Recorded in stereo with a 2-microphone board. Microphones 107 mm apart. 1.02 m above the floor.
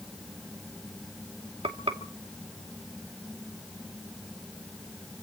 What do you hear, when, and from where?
1.6 s frying: 70° right (ahead or behind), 2.5 m